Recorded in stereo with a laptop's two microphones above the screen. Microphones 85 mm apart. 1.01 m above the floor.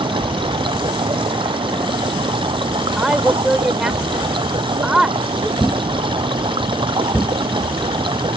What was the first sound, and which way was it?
Running water, 80° right.